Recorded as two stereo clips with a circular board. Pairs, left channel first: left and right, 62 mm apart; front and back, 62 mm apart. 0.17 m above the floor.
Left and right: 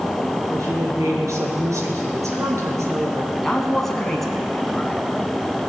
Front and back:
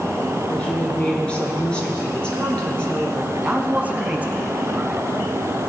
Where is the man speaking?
165° left, 1.5 m.